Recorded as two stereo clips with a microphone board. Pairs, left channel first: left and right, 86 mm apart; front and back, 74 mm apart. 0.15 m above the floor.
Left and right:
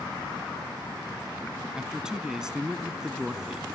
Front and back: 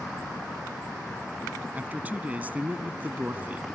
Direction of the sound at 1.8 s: 160° right.